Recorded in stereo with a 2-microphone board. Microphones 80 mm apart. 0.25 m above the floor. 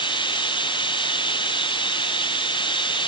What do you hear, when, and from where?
0.0 s running water: 80° left